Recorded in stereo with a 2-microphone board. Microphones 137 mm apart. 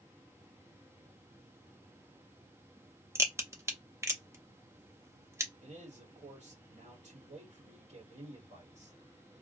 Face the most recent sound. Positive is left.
turn(degrees=-60)  # may be behind; listen again after turning